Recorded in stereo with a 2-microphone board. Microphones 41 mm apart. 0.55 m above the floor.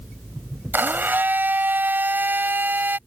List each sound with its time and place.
0.7 s a blender: 50° right (ahead or behind)